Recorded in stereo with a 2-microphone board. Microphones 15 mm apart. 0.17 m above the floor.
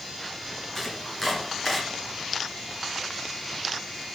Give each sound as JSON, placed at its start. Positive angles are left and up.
{"t": 0.8, "sound": "chopping", "side_deg": 5, "distance_m": 2.0}